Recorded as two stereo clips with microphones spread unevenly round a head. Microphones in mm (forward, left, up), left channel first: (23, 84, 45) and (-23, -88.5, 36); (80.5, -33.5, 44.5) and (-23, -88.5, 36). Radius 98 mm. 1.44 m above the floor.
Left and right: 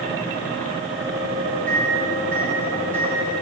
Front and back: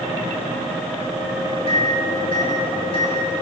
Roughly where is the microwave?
Ahead.